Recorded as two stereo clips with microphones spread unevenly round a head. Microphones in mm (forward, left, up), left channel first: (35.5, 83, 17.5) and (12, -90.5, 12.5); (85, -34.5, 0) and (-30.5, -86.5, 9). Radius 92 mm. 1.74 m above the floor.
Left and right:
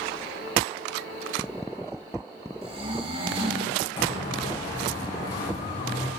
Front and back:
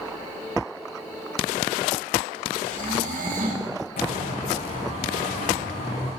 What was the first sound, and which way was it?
Snoring, 160° right.